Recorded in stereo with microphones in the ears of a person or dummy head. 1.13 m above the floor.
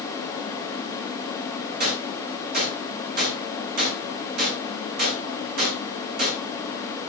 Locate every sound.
1.8 s a gunshot: 45° right (ahead or behind), 8 m